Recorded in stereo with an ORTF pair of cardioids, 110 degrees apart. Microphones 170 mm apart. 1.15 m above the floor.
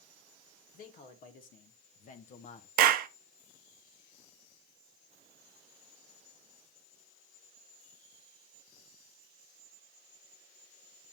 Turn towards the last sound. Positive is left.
turn(degrees=-65)